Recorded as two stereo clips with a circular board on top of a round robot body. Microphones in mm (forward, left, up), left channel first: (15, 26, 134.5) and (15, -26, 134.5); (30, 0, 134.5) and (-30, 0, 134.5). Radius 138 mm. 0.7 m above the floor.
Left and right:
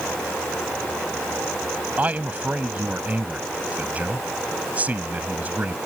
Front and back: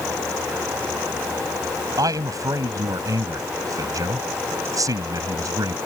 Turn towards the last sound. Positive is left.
turn(degrees=-155)